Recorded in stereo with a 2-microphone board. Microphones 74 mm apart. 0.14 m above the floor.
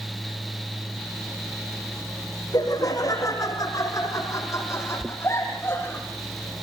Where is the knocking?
20° right (ahead or behind), 0.8 m.